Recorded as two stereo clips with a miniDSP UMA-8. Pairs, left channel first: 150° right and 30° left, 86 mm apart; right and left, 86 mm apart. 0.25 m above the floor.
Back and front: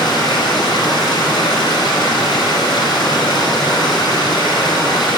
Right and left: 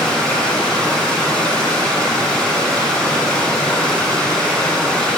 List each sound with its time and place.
0.0 s running water: 160° right, 1.8 m